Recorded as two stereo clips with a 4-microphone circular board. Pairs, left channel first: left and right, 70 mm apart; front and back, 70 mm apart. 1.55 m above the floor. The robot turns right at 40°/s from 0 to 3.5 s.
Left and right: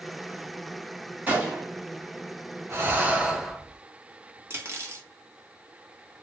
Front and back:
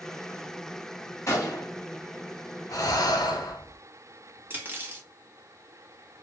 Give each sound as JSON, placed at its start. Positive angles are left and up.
{"t": 1.3, "sound": "a gunshot", "azimuth_deg": -30, "distance_m": 1.3}
{"t": 2.7, "sound": "breathing", "azimuth_deg": -35, "distance_m": 0.8}
{"t": 4.5, "sound": "cutlery clinking", "azimuth_deg": -130, "distance_m": 0.9}